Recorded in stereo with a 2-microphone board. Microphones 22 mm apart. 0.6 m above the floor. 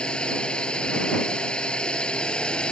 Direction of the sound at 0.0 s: 50° left (ahead or behind).